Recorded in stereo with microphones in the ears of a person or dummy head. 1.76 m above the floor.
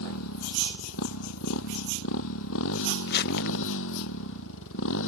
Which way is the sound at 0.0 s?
80° left.